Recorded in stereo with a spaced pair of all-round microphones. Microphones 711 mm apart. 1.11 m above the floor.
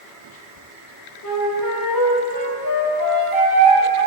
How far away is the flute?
About 4.5 m.